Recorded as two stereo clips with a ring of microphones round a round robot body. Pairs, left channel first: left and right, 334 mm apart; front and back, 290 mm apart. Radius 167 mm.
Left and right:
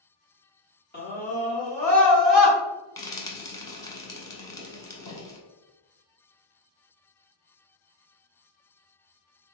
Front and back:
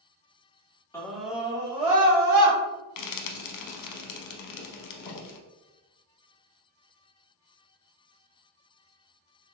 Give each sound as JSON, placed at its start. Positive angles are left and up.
{"t": 0.9, "sound": "a scream", "azimuth_deg": 70, "distance_m": 1.2}
{"t": 3.0, "sound": "frying", "azimuth_deg": 10, "distance_m": 0.6}